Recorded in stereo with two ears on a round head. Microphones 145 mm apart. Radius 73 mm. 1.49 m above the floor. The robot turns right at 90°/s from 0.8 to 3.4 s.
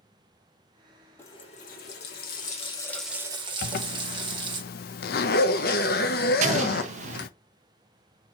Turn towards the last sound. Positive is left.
turn(degrees=-45)  # may be behind; listen again after turning